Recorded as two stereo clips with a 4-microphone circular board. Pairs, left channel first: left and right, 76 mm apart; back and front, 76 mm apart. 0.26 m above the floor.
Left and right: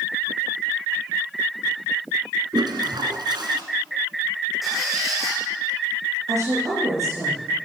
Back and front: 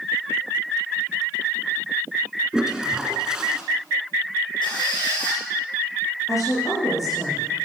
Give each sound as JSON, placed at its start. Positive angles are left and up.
{"t": 2.5, "sound": "a toilet flushing", "azimuth_deg": -80, "distance_m": 1.8}
{"t": 4.6, "sound": "a squeak", "azimuth_deg": -175, "distance_m": 5.5}
{"t": 6.3, "sound": "a woman speaking", "azimuth_deg": -135, "distance_m": 6.0}